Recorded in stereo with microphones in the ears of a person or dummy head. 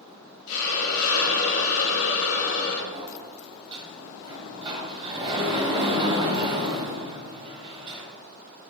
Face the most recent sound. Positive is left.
turn(degrees=-30)  # may be behind; listen again after turning